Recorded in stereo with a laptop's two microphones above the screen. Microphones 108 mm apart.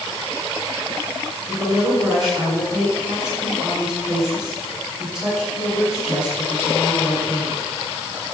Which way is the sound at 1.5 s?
45° right (ahead or behind).